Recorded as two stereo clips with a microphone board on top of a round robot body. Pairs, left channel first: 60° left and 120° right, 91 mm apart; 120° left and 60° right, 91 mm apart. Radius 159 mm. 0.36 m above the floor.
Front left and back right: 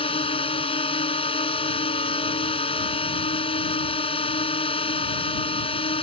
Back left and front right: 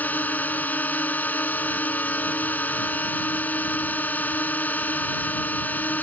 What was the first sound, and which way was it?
A drone, 50° left.